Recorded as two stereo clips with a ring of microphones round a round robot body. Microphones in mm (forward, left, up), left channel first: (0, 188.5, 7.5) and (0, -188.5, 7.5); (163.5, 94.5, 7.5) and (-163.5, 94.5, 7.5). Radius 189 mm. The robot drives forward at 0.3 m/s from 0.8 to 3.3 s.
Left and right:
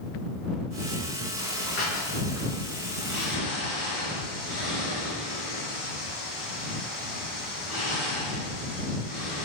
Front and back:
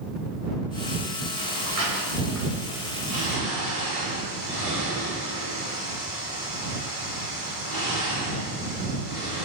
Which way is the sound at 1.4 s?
Straight behind.